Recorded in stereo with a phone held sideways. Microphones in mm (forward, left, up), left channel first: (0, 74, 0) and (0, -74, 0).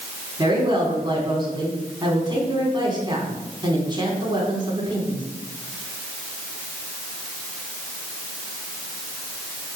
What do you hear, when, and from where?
0.4 s a woman speaking: 30° right (ahead or behind), 4 m